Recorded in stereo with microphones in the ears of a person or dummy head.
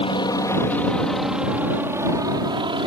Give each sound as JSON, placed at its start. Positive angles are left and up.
{"t": 0.0, "sound": "a helicopter", "side_deg": 25}